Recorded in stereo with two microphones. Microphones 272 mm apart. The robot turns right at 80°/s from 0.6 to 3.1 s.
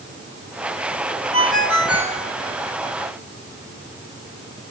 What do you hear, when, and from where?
1.3 s a ringtone: 75° left, 1.8 m; by 2.2 s 150° left, 1.8 m